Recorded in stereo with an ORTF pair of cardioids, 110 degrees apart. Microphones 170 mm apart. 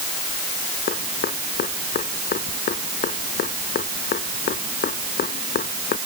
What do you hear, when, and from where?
0.9 s dripping: 60° left